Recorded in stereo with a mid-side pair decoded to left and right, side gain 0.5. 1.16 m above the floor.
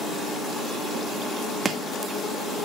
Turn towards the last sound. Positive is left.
turn(degrees=-35)